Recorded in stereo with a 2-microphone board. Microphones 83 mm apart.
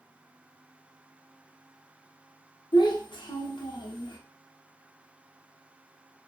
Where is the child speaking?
75° left (ahead or behind), 0.6 m.